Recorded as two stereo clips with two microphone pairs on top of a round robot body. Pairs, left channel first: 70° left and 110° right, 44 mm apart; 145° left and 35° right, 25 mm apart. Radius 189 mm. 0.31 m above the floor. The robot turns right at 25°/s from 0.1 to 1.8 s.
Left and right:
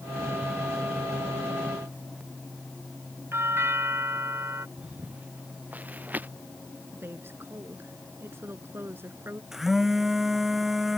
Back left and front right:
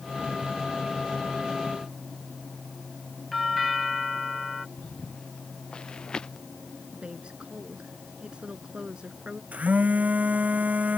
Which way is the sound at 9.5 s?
25° right.